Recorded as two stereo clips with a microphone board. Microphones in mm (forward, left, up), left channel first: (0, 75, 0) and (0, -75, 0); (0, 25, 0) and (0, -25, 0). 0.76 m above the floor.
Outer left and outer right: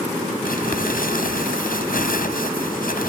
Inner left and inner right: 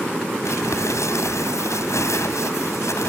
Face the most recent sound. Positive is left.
turn(degrees=75)  # may be behind; listen again after turning